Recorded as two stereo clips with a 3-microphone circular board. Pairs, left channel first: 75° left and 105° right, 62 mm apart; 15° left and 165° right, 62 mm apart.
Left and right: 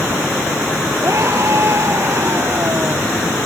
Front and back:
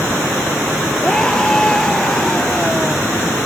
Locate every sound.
1.0 s a scream: 65° right